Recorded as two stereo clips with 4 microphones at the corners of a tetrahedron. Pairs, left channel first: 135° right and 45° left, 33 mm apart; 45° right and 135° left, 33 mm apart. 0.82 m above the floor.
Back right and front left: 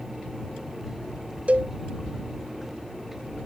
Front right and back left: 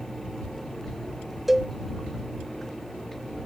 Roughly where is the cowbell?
Ahead left.